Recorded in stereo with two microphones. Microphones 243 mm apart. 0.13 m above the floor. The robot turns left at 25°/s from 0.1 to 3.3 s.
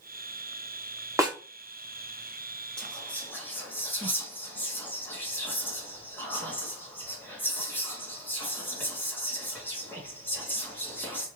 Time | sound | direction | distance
1.2 | a snare drum | 15° right (ahead or behind) | 0.8 m
2.8 | whispering | 5° left (ahead or behind) | 1.1 m